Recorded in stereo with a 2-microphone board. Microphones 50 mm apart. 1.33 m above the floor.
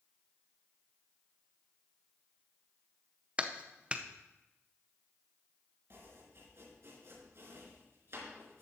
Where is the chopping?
60° right (ahead or behind), 4 m.